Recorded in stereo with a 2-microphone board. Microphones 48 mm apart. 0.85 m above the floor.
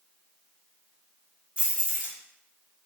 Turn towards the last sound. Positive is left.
turn(degrees=-25)  # may be behind; listen again after turning